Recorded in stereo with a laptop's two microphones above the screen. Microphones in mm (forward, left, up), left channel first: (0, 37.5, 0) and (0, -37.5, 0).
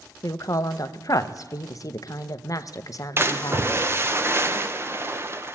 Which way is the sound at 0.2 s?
50° left (ahead or behind).